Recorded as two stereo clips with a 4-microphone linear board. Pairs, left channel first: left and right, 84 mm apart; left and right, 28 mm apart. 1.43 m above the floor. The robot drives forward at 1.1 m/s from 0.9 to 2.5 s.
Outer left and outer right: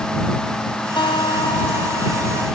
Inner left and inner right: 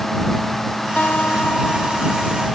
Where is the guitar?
80° left; by 2.5 s 90° left.